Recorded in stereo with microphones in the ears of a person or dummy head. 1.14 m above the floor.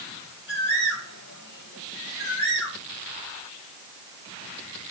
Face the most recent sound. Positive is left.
turn(degrees=60)  # may be behind; listen again after turning